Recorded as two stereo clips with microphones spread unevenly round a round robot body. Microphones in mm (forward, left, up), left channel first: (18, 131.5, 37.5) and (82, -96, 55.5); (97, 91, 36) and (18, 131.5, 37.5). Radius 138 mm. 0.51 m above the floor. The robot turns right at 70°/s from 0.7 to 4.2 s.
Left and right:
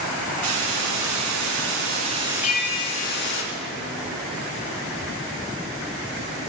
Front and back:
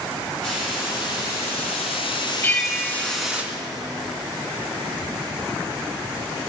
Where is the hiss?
115° right, 3 m; by 3.4 s 75° left, 3 m.